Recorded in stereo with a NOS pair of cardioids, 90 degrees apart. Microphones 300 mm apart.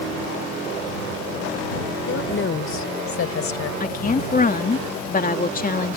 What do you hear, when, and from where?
2.1 s a woman speaking: 45° left; by 3.7 s 55° left
3.8 s a woman speaking: 30° left